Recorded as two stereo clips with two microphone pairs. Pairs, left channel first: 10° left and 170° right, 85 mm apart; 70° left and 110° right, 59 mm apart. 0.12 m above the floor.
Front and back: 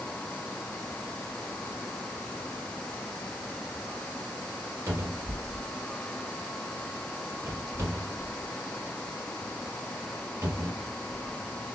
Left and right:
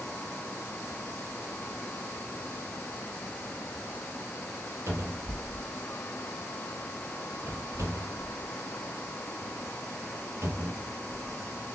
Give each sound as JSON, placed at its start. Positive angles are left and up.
{"t": 4.9, "sound": "a cupboard door", "azimuth_deg": -125, "distance_m": 2.0}